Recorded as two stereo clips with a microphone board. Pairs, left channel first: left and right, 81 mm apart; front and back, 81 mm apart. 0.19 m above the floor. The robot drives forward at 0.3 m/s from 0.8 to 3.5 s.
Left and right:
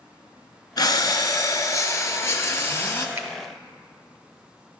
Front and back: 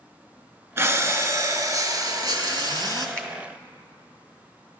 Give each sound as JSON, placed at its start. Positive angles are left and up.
{"t": 0.8, "sound": "breathing", "azimuth_deg": 125, "distance_m": 0.7}
{"t": 3.2, "sound": "a finger snap", "azimuth_deg": -60, "distance_m": 1.2}